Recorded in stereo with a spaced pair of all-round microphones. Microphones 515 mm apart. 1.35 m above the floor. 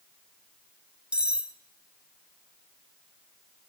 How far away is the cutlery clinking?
About 0.7 m.